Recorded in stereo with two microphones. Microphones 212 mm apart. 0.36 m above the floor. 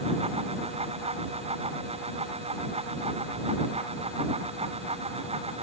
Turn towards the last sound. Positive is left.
No sound to turn to.